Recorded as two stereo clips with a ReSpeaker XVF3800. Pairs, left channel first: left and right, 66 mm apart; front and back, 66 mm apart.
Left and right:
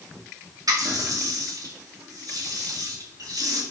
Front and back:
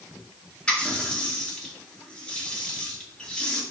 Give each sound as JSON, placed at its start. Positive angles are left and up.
{"t": 0.7, "sound": "a running tap", "azimuth_deg": -75, "distance_m": 2.0}